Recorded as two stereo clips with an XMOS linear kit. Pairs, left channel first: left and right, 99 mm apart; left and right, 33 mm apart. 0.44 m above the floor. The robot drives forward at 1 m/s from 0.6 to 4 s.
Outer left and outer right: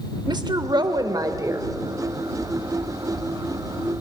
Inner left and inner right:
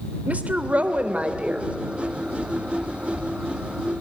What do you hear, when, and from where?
0.3 s a woman speaking: 45° right (ahead or behind), 1.3 m; by 1.7 s 30° right (ahead or behind), 1.7 m